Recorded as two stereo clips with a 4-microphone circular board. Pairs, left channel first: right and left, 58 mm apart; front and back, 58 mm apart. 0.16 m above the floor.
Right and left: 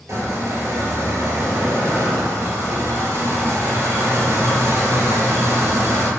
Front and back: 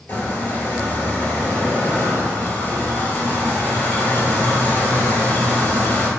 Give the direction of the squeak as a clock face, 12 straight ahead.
10 o'clock.